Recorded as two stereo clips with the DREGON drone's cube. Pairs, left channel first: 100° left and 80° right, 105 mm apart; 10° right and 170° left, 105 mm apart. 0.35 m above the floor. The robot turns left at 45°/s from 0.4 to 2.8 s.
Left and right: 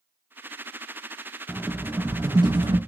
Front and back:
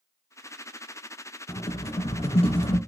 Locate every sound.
1.5 s a rattle: 10° left, 0.7 m; by 2.8 s 50° right, 0.7 m